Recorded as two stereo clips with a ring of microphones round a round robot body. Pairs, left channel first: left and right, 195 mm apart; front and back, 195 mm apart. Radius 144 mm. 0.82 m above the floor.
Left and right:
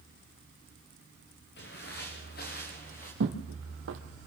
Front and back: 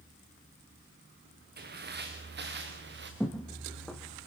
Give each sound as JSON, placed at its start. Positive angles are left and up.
{"t": 1.6, "sound": "footsteps", "azimuth_deg": 145, "distance_m": 4.0}
{"t": 3.2, "sound": "footsteps", "azimuth_deg": -90, "distance_m": 2.0}